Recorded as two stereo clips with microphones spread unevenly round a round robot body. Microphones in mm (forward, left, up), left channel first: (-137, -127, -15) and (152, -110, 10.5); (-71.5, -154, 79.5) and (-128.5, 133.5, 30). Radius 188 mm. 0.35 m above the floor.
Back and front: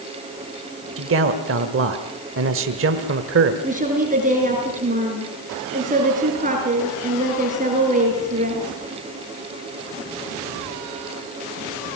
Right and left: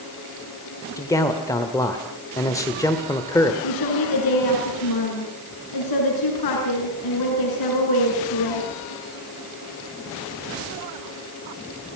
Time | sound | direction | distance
1.0 | a man speaking | 5° left | 1.5 m
3.6 | a woman speaking | 60° right | 5.5 m